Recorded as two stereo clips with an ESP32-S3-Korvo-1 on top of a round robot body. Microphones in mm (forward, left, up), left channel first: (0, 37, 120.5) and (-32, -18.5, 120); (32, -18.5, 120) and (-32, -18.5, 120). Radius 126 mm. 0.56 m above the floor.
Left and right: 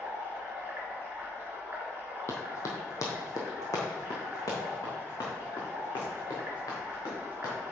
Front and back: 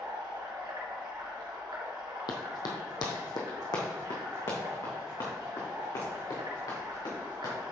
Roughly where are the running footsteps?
Ahead.